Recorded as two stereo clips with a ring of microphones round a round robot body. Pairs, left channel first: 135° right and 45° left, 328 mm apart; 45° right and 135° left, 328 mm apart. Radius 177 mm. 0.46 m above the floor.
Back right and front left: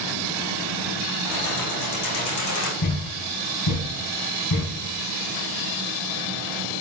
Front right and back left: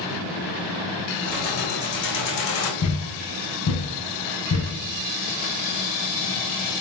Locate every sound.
1.2 s keys jangling: 110° right, 3 m; by 2.7 s 90° right, 1.7 m
2.8 s a thud: 95° right, 1.3 m